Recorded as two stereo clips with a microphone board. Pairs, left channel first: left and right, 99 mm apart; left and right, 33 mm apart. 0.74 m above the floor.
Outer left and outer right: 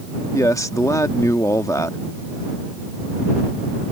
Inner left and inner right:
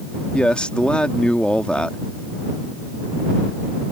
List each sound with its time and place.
0.3 s a man speaking: 35° left (ahead or behind)